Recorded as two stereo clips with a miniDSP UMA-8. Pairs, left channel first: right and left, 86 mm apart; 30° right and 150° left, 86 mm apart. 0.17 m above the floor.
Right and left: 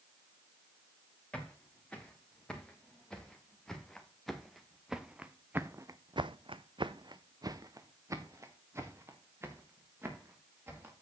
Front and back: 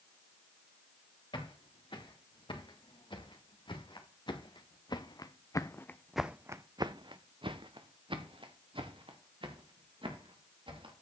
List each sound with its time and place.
1.3 s footsteps: 10° right, 4 m; by 10.9 s 155° left, 3.5 m